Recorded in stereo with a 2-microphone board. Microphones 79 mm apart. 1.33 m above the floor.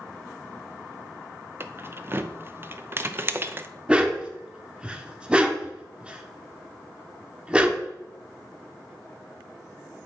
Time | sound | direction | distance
1.6 | keys jangling | 30° right (ahead or behind) | 0.7 m
3.9 | a dog barking | 15° right (ahead or behind) | 1.1 m